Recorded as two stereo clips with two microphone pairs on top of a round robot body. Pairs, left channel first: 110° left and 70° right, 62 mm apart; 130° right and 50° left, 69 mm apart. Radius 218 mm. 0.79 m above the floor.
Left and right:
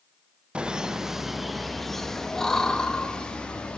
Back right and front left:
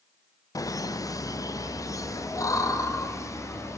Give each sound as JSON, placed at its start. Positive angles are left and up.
{"t": 0.6, "sound": "laughter", "azimuth_deg": -135, "distance_m": 1.5}